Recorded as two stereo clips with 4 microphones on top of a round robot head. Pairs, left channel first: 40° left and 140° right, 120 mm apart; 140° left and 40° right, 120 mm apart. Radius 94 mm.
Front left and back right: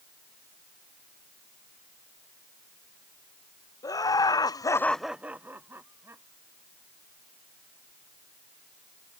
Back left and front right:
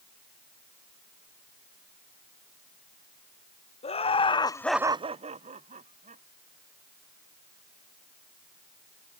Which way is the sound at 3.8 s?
105° left.